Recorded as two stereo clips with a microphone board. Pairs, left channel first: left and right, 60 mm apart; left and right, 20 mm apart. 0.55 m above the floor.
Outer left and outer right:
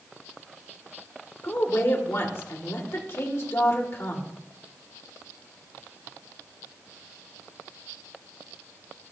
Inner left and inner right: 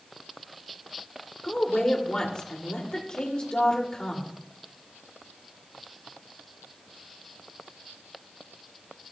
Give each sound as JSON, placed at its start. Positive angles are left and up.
{"t": 1.4, "sound": "a woman speaking", "side_deg": 45, "distance_m": 1.9}